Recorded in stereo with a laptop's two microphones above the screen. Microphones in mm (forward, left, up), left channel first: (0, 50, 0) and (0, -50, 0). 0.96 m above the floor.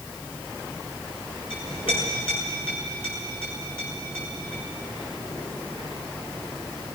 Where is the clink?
70° left (ahead or behind), 7.5 m.